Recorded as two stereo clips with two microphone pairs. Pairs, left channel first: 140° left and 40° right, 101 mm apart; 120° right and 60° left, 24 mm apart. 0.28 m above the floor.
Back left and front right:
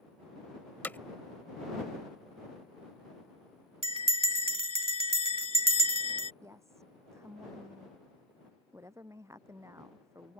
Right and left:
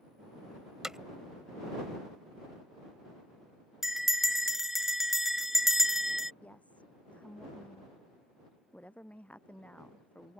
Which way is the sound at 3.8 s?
20° right.